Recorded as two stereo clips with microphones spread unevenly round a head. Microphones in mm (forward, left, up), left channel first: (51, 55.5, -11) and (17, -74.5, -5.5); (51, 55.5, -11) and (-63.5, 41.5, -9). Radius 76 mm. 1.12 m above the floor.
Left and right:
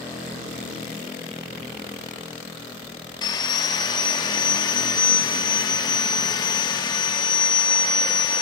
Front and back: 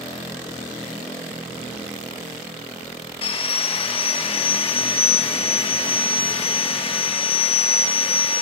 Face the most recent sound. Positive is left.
turn(degrees=25)